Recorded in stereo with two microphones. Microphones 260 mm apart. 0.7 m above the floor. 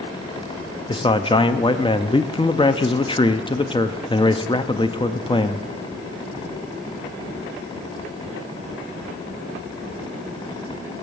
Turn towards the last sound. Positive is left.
turn(degrees=20)  # may be behind; listen again after turning